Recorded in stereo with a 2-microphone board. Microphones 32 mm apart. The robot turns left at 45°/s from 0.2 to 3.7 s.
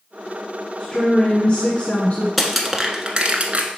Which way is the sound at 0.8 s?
155° left.